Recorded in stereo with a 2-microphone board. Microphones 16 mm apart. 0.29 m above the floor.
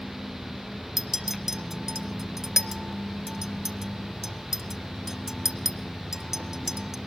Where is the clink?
25° right (ahead or behind), 0.9 m.